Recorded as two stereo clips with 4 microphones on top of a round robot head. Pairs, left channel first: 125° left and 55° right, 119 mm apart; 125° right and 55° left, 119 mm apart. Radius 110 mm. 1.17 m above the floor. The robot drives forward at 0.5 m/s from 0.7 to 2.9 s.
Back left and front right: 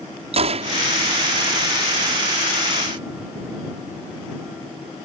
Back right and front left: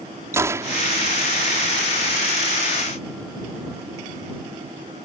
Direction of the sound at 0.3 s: 15° right.